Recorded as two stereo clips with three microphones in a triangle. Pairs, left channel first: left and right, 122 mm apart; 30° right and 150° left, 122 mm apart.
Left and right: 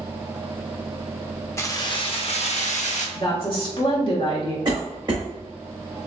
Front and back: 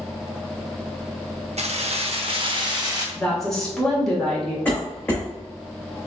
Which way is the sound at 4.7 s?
100° right.